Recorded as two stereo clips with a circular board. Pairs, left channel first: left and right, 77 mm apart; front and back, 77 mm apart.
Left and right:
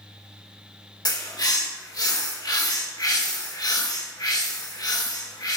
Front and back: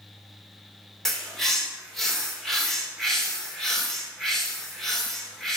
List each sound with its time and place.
1.1 s a bird: 85° left, 1.1 m